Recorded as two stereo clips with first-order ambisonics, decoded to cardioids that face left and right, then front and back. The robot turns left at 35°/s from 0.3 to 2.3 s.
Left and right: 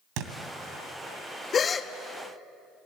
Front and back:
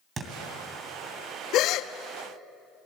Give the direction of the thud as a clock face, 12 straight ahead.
4 o'clock.